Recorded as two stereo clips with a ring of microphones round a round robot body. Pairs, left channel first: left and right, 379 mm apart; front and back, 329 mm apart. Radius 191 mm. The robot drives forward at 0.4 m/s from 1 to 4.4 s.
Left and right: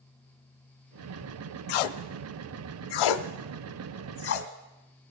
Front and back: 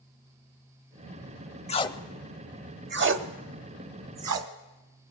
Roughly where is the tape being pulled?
Left.